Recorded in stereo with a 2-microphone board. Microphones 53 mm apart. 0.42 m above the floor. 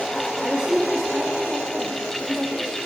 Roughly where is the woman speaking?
Right.